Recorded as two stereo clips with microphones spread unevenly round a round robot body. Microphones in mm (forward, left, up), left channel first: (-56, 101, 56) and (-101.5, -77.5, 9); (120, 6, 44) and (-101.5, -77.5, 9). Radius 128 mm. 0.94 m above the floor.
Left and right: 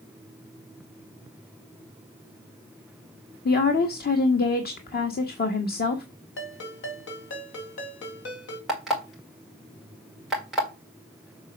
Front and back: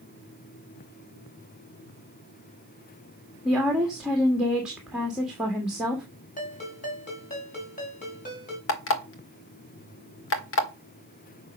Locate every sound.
3.5 s a woman speaking: 115° left, 1.5 m
6.4 s a ringtone: 80° left, 3 m
8.7 s an alarm clock: 15° right, 1.8 m